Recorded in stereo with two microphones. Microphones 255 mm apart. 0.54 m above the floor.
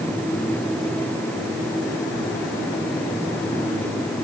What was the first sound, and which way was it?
Only background noise.